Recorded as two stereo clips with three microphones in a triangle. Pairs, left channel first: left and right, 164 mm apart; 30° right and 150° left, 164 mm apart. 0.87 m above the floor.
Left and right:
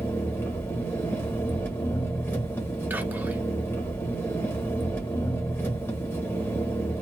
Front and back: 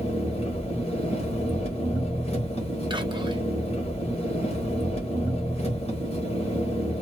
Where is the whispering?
165° right, 0.7 m.